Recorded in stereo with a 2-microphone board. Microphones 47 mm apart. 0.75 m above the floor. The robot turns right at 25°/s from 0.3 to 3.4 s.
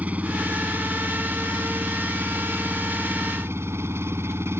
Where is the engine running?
145° right; by 4.6 s 70° right.